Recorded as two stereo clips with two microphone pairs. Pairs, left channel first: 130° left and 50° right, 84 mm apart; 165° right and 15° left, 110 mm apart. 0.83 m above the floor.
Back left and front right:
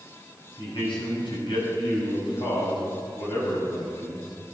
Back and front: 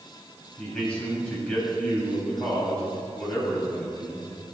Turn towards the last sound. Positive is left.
turn(degrees=115)